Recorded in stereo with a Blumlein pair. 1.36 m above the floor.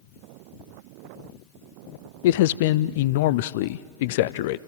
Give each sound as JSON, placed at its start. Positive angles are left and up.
{"t": 2.2, "sound": "a man speaking", "azimuth_deg": 50, "distance_m": 0.6}